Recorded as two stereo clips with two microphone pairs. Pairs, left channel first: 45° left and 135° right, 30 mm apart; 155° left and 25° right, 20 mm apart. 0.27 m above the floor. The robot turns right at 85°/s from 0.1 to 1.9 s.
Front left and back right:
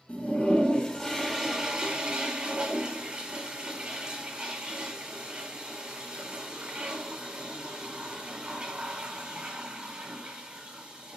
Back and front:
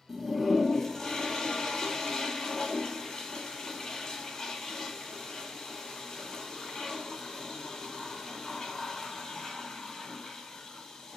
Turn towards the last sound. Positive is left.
turn(degrees=-170)